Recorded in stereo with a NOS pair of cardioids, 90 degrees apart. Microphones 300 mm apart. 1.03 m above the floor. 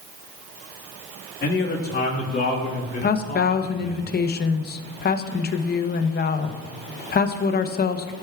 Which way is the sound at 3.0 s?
35° left.